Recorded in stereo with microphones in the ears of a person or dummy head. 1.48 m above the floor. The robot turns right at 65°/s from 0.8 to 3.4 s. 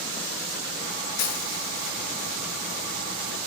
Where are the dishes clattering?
60° left (ahead or behind), 1.9 m; by 1.9 s 20° left (ahead or behind), 1.9 m.